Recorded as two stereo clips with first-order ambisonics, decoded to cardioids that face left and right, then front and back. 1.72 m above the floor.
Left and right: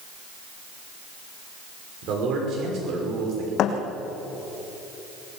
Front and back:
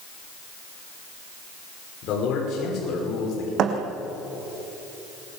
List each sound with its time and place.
2.0 s a man speaking: 45° right, 6 m
3.6 s a thud: 135° left, 3 m